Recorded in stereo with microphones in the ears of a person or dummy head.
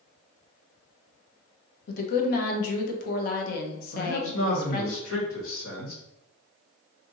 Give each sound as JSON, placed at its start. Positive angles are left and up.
{"t": 1.9, "sound": "a woman speaking", "side_deg": 60, "distance_m": 0.9}
{"t": 3.9, "sound": "a man speaking", "side_deg": 90, "distance_m": 1.8}